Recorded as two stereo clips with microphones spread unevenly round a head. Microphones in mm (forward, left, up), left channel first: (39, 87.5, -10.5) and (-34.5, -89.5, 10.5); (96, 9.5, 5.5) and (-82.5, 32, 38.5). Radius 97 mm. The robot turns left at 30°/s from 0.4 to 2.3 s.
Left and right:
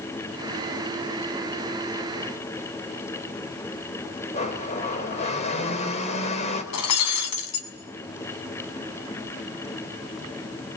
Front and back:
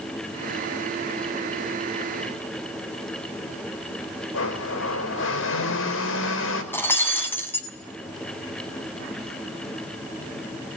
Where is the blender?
10° left, 4.5 m.